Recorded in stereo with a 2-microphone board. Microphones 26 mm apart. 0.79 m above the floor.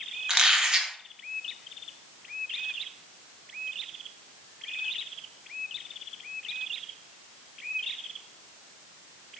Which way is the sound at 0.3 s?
35° right (ahead or behind).